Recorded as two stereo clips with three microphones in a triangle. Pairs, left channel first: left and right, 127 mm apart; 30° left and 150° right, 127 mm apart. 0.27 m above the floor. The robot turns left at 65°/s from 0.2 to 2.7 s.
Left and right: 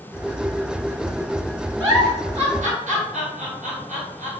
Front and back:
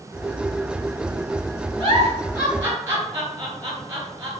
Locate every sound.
1.8 s a giggle: 20° right, 1.3 m; by 4.3 s 80° right, 1.3 m